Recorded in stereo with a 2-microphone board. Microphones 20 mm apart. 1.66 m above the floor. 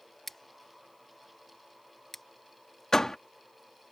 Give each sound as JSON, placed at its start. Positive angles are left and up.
{"t": 0.3, "sound": "scissors", "side_deg": 15}
{"t": 2.9, "sound": "a door slam", "side_deg": 25}